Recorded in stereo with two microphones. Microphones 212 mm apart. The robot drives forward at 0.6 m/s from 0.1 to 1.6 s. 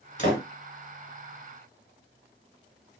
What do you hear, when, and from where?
0.2 s a door slam: 40° left (ahead or behind), 1.8 m